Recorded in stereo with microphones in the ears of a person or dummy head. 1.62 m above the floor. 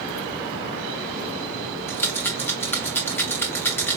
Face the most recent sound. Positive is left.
turn(degrees=10)  # may be behind; listen again after turning